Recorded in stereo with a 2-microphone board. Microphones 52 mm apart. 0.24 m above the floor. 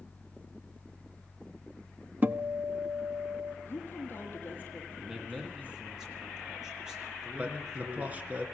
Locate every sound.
2.2 s a guitar: 35° right (ahead or behind), 0.7 m
3.6 s a woman speaking: 35° left (ahead or behind), 7.5 m
5.0 s a man speaking: 10° right (ahead or behind), 6.5 m
7.4 s a man speaking: 30° right (ahead or behind), 3.5 m